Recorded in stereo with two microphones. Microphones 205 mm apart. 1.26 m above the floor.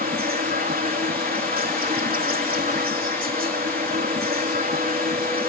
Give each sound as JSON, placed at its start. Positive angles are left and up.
{"t": 0.0, "sound": "an insect", "side_deg": -40}